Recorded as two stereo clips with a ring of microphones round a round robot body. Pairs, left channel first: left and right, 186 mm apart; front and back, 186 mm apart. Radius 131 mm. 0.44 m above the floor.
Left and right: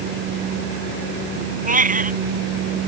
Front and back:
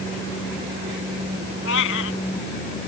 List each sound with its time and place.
1.6 s a cat meowing: 45° right